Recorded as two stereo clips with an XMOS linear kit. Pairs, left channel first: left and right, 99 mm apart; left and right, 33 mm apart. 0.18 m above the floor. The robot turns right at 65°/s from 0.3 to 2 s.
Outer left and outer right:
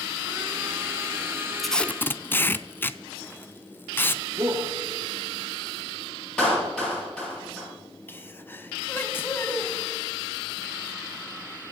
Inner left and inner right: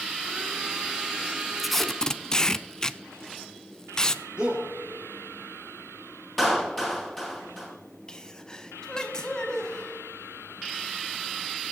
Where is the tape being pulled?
Centre (ahead or behind), 0.5 m; by 4.2 s 20° left (ahead or behind), 0.5 m.